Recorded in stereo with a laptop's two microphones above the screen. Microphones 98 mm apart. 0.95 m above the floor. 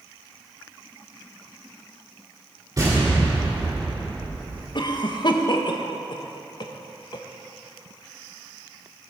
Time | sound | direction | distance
2.8 | an explosion | 35° right (ahead or behind) | 2.5 m
4.8 | a cough | 50° left (ahead or behind) | 0.9 m